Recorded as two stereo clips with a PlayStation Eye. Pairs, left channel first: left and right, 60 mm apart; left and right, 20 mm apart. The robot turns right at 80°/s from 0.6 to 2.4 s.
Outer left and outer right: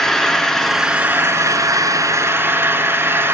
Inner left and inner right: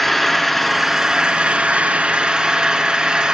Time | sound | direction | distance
0.0 | an engine running | 175° left | 2 m